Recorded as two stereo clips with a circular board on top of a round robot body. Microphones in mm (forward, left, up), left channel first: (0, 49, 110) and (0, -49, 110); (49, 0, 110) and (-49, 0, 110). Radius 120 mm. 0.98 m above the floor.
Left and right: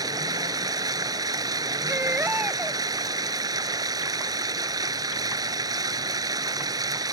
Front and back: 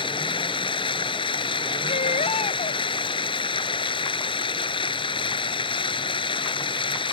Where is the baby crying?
15° right.